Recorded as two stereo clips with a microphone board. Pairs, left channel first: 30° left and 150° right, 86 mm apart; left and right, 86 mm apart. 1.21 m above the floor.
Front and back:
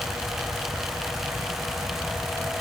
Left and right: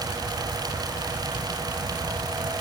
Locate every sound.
Only background noise.